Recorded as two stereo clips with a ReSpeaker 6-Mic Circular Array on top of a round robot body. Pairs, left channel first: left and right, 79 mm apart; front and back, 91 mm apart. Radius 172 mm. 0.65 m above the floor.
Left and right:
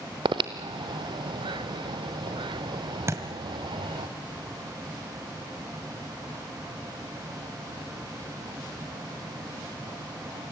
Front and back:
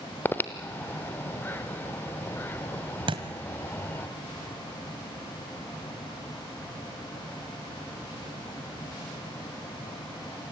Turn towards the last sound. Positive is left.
turn(degrees=-145)